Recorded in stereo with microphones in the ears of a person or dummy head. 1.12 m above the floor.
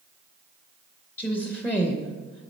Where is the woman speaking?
15° left (ahead or behind), 0.7 m.